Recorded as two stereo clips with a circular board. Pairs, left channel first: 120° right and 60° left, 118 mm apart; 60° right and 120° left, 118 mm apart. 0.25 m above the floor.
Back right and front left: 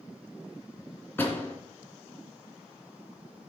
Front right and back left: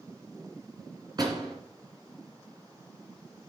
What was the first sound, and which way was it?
A door slam, 170° left.